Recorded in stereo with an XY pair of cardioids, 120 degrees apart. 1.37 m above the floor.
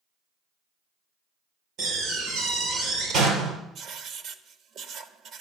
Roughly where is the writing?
Ahead right.